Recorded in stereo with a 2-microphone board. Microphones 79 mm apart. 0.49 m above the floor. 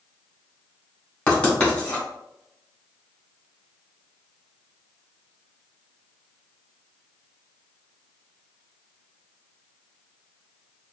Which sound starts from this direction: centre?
Writing, at 1.3 s.